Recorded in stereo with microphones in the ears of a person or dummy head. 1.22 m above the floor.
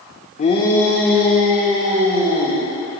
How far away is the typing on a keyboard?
No typing on a keyboard in this recording.